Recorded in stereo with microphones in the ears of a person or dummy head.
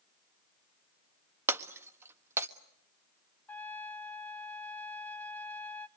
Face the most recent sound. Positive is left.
turn(degrees=0)  # may be behind; listen again after turning